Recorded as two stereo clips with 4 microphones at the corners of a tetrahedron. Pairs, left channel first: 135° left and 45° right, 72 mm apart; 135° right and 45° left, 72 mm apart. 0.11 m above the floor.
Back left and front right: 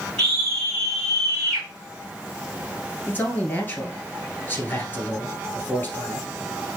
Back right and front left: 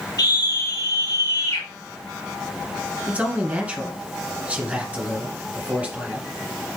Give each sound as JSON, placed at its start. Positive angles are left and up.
{"t": 0.2, "sound": "a scream", "azimuth_deg": -145, "distance_m": 3.5}
{"t": 3.1, "sound": "a man speaking", "azimuth_deg": 100, "distance_m": 1.3}